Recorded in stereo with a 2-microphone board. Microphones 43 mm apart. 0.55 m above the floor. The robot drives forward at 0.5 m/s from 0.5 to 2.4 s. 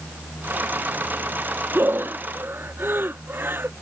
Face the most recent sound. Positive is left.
turn(degrees=-55)  # may be behind; listen again after turning